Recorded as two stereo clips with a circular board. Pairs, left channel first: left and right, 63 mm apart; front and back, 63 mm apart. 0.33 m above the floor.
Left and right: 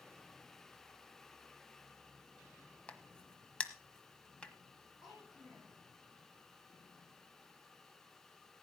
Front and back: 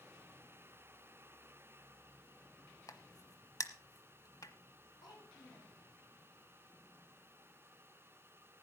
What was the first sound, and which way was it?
A crack, 15° left.